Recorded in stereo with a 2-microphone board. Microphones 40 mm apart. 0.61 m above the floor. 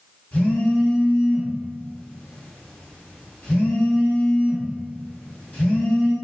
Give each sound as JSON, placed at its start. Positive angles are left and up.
{"t": 0.3, "sound": "a phone buzzing", "side_deg": 35, "distance_m": 1.6}